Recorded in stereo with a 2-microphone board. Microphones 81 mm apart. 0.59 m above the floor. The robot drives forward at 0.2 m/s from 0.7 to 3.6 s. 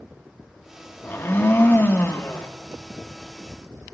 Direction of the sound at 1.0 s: 30° left (ahead or behind).